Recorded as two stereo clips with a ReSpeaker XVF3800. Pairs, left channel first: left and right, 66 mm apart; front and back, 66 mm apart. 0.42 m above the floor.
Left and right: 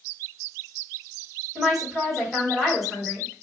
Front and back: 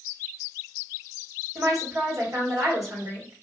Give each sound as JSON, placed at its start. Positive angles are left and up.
{"t": 1.6, "sound": "a woman speaking", "azimuth_deg": 180, "distance_m": 2.5}